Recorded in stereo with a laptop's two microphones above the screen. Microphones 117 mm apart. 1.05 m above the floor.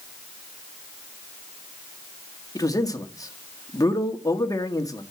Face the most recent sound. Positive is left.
turn(degrees=30)  # may be behind; listen again after turning